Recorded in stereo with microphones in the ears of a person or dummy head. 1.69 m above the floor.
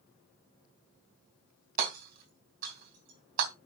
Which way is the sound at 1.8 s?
50° right (ahead or behind).